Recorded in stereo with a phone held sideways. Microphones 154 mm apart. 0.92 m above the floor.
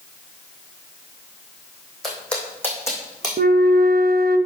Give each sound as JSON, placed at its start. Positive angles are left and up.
{"t": 2.0, "sound": "footsteps", "side_deg": 0, "distance_m": 3.0}
{"t": 3.4, "sound": "a flute", "side_deg": -80, "distance_m": 0.5}